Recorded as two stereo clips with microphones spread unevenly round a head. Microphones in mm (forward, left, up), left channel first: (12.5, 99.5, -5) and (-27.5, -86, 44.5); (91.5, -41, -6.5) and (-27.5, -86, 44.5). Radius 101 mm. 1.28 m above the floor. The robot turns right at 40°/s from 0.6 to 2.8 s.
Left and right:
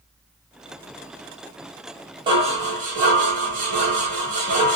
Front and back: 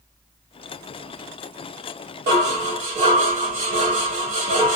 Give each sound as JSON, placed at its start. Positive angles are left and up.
{"t": 2.3, "sound": "dishes clattering", "azimuth_deg": -165, "distance_m": 1.8}